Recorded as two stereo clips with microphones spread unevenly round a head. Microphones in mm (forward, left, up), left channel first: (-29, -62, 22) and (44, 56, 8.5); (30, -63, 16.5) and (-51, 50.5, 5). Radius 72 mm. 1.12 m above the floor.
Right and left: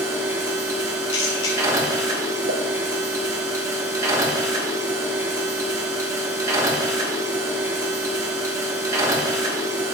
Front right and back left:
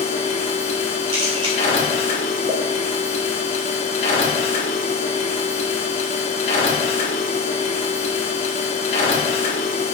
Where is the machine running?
5° right, 1.4 m.